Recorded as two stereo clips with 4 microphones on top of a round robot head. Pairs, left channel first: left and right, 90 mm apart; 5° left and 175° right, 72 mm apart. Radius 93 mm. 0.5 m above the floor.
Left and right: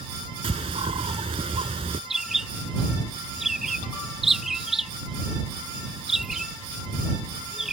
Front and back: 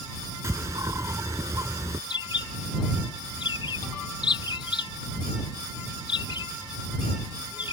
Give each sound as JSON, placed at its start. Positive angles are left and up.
{"t": 0.4, "sound": "a bird", "azimuth_deg": -120}
{"t": 2.1, "sound": "a bird", "azimuth_deg": -5}